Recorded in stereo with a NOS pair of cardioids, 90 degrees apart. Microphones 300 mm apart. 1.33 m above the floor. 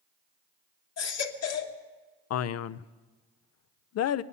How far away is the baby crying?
About 1.4 m.